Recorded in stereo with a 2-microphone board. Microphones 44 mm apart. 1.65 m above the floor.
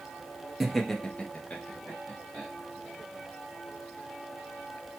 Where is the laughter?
Centre (ahead or behind), 0.6 m; by 2.5 s 40° left (ahead or behind), 1.1 m.